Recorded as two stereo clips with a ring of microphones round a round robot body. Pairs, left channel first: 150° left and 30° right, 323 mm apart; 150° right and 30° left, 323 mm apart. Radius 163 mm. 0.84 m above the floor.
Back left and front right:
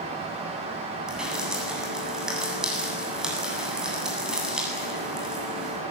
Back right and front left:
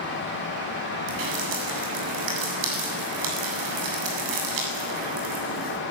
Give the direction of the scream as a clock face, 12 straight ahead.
I don't hear a scream.